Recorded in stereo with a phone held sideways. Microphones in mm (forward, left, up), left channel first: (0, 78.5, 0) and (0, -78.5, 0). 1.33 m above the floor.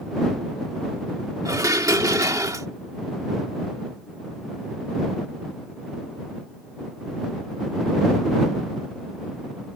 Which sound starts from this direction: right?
Dishes clattering, at 1.4 s.